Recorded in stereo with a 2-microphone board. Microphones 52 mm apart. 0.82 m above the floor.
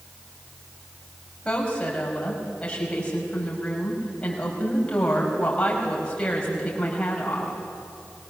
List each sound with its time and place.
1.4 s a woman speaking: 20° left (ahead or behind), 5 m